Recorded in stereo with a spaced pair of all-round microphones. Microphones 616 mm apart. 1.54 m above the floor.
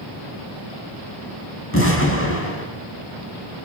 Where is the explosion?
20° left (ahead or behind), 5.5 m.